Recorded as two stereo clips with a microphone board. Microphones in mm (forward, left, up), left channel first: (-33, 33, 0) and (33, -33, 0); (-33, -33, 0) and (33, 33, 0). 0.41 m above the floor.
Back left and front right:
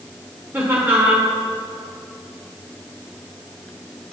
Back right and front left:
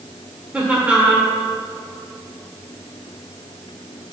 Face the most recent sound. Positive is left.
turn(degrees=-15)